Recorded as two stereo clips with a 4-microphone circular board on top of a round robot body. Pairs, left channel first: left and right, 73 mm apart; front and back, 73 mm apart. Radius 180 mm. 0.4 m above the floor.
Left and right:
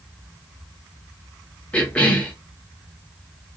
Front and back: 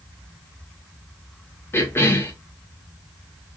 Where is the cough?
25° left, 0.8 m.